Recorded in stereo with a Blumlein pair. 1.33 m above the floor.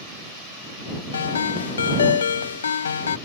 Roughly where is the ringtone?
Left.